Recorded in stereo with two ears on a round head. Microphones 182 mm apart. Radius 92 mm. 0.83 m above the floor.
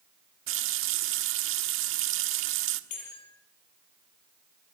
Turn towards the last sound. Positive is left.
turn(degrees=90)